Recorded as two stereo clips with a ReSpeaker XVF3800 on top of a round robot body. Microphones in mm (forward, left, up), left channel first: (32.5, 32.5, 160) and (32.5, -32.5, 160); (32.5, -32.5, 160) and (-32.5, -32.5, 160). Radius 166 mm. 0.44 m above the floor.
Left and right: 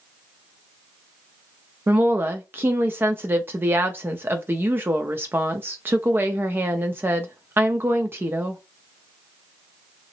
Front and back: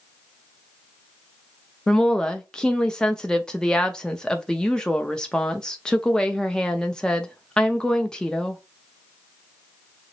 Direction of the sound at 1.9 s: 70° right.